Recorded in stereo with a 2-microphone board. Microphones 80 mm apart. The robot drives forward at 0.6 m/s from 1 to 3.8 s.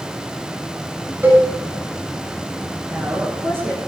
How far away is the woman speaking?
About 5.5 m.